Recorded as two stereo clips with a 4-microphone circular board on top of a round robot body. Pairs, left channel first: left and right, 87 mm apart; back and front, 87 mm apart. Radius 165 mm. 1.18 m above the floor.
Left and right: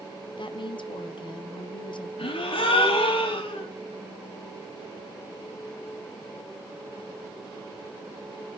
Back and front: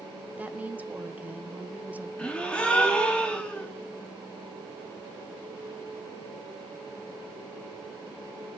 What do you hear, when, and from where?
0.4 s a woman speaking: 70° left, 1.1 m
2.2 s a gasp: 100° left, 2 m